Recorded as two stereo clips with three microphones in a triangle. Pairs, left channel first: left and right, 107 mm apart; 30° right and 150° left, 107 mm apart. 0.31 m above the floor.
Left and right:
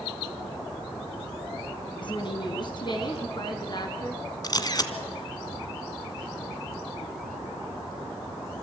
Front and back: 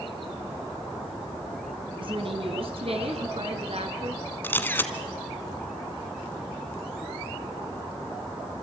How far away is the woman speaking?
About 3 m.